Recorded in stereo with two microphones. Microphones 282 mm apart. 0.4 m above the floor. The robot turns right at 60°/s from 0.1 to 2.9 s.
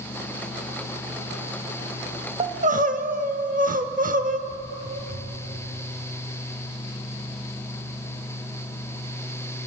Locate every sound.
2.4 s crying: 20° right (ahead or behind), 0.7 m; by 4.4 s 30° right (ahead or behind), 0.7 m
4.5 s footsteps: 75° right (ahead or behind), 3.5 m